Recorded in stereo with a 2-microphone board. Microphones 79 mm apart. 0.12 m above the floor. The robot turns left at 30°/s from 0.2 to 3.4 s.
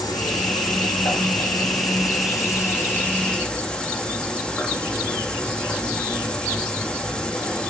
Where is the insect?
115° left, 2 m; by 7.7 s 15° left, 2 m.